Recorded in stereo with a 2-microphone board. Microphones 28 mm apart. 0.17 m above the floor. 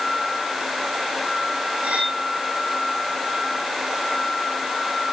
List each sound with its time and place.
1.8 s cutlery clinking: 65° right (ahead or behind), 4.5 m